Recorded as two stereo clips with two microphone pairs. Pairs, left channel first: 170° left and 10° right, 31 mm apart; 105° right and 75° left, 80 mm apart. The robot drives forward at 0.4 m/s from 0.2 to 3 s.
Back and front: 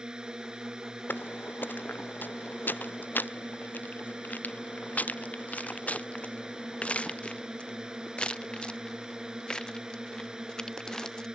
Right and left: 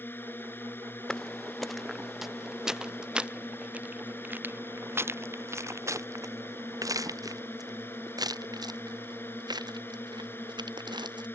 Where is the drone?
60° right; by 11.4 s 65° right.